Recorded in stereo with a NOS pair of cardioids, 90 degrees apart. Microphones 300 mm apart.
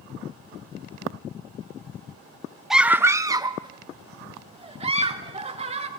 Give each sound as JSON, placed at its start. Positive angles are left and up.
{"t": 2.7, "sound": "a scream", "azimuth_deg": 0, "distance_m": 0.6}